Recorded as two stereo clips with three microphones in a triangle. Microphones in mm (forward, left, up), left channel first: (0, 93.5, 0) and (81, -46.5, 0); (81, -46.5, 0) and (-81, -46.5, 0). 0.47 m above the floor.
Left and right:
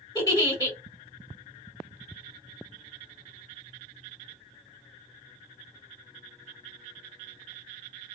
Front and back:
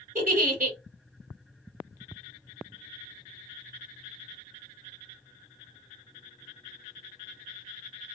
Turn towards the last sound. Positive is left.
turn(degrees=-175)